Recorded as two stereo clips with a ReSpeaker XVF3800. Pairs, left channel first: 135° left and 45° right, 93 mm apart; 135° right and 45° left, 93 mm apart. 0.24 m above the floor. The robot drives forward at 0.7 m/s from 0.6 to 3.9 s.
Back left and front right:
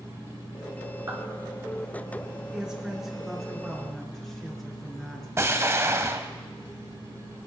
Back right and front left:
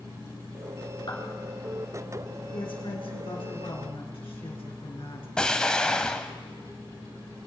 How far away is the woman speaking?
About 3 m.